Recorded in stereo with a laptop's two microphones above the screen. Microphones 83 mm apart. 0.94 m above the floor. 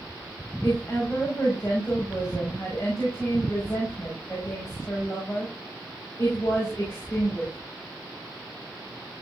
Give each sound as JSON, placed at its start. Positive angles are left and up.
{"t": 0.6, "sound": "a woman speaking", "side_deg": 30, "distance_m": 5.5}